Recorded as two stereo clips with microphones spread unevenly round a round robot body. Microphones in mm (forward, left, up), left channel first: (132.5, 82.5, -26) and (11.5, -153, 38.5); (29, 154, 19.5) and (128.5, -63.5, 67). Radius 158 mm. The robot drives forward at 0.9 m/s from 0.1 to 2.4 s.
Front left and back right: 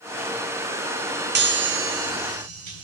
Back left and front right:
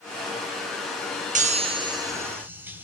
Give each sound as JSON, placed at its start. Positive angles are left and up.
{"t": 1.4, "sound": "a chime", "azimuth_deg": -105, "distance_m": 1.2}